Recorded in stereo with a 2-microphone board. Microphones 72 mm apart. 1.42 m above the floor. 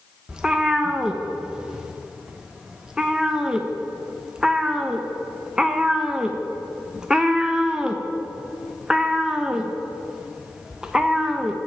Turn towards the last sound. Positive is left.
turn(degrees=-10)  # may be behind; listen again after turning